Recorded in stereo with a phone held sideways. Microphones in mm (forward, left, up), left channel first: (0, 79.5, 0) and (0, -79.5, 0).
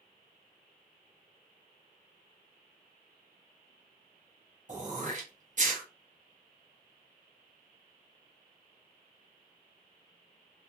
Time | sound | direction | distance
4.7 | throat clearing | 55° right (ahead or behind) | 0.7 m